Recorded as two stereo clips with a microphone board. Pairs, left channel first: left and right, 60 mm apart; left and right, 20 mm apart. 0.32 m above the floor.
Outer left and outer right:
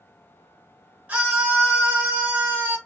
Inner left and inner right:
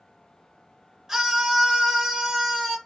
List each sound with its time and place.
1.1 s a scream: 25° right (ahead or behind), 1.8 m; by 2.8 s 30° right (ahead or behind), 1.1 m